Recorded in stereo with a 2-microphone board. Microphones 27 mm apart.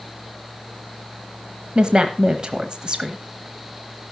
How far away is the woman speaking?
About 1.1 m.